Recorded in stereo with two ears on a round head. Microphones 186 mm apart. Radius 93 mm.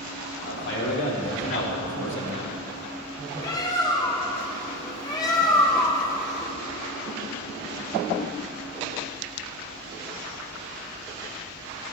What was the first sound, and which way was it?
A man speaking, 65° left (ahead or behind).